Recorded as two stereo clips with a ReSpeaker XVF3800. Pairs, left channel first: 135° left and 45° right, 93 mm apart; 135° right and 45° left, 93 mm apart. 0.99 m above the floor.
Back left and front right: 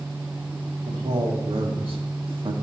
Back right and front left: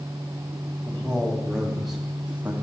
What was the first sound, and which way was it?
A man speaking, 60° right.